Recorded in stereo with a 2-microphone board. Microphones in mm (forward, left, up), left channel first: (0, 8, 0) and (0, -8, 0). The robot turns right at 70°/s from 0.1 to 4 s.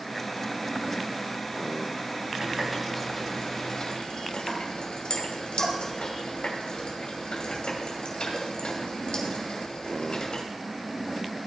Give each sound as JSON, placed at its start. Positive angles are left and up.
{"t": 2.4, "sound": "a running tap", "side_deg": -30, "distance_m": 2.5}